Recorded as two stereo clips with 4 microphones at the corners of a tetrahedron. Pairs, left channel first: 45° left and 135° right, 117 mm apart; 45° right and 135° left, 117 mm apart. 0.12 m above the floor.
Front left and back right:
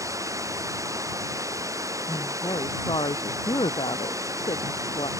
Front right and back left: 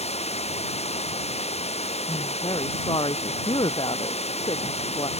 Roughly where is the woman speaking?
Ahead.